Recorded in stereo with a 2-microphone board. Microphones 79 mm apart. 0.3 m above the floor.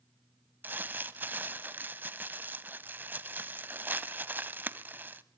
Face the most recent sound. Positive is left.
turn(degrees=-25)  # may be behind; listen again after turning